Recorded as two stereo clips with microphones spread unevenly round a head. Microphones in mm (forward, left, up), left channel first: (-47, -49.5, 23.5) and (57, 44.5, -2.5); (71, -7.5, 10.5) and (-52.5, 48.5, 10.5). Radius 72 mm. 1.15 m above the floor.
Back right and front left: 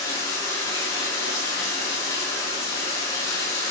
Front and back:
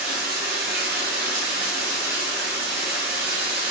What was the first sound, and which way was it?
Running water, 160° left.